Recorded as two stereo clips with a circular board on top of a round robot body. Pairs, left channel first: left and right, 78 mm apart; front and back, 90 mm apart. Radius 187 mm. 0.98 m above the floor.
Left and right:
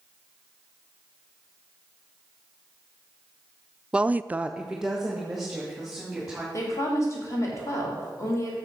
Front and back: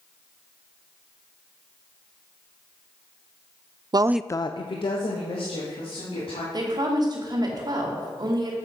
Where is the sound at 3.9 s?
165° right, 0.6 m; by 6.4 s 5° right, 3.5 m.